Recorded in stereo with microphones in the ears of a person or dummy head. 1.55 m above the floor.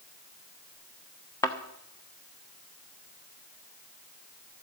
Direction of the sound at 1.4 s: 20° left (ahead or behind).